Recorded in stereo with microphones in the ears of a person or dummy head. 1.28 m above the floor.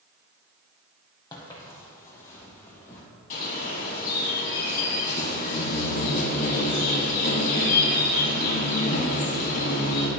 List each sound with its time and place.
1.3 s footsteps: 20° left (ahead or behind), 1.8 m; by 3.0 s 15° left (ahead or behind), 3.5 m
3.3 s a bird: 45° left (ahead or behind), 3 m